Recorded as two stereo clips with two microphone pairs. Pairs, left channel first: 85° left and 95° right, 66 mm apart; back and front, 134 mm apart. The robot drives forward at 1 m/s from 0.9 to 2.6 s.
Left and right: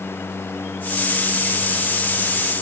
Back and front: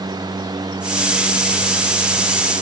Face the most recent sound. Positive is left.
No sound to turn to.